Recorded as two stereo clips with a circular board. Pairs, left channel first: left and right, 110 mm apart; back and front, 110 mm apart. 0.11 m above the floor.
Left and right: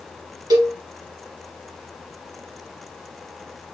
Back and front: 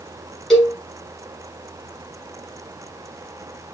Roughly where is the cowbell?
Right.